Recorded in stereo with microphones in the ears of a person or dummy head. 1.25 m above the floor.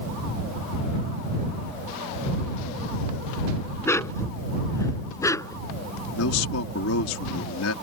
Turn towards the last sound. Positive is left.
turn(degrees=75)  # may be behind; listen again after turning